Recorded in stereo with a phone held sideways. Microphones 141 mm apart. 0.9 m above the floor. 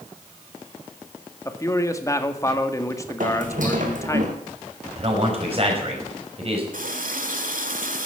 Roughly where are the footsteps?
Right.